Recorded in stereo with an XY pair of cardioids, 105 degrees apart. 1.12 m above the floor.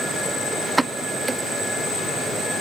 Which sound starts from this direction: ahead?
A pop, at 0.8 s.